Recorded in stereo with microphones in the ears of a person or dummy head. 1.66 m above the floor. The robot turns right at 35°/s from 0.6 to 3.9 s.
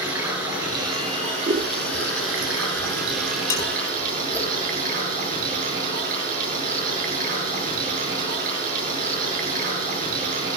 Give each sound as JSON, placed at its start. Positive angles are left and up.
{"t": 0.0, "sound": "running water", "azimuth_deg": -165, "distance_m": 8.0}
{"t": 1.5, "sound": "scissors", "side_deg": -25, "distance_m": 1.4}
{"t": 3.5, "sound": "dishes clattering", "side_deg": 20, "distance_m": 2.5}